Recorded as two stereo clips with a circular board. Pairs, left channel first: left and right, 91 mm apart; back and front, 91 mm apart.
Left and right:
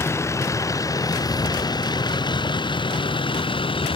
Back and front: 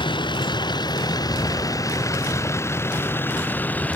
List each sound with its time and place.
0.0 s a vehicle: 150° left; by 4.0 s 105° left